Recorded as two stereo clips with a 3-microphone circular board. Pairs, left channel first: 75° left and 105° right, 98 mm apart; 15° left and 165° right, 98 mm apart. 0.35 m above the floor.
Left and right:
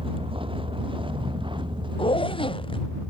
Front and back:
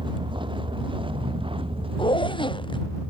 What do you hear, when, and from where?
0.0 s a vehicle: 130° right; by 3.1 s 145° right
2.0 s a zipper: 50° left